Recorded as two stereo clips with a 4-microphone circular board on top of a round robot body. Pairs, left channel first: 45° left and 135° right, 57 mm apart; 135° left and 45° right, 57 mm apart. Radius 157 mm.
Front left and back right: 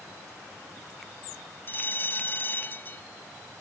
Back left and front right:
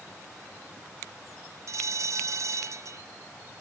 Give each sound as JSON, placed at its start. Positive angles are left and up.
{"t": 1.7, "sound": "a bell", "azimuth_deg": -10}